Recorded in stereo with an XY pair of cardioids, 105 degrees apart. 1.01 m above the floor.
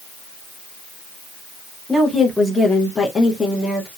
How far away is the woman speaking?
About 0.9 m.